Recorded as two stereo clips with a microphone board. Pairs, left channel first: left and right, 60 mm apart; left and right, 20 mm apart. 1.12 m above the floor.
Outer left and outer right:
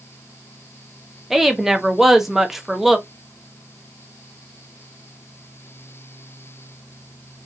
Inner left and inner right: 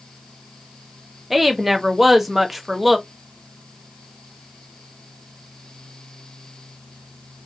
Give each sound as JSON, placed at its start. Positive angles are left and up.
{"t": 1.3, "sound": "a woman speaking", "side_deg": -5, "distance_m": 0.6}